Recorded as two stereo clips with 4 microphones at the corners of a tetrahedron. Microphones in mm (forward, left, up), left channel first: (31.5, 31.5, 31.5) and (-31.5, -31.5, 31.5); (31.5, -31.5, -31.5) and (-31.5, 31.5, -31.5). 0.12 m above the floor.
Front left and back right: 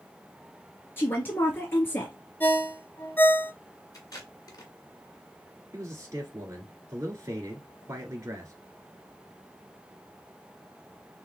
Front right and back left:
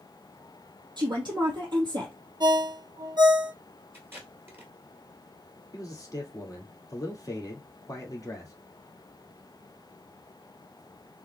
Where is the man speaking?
85° right, 1.9 m.